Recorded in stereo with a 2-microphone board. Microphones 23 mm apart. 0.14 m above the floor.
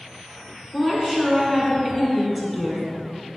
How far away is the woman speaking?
About 1.1 m.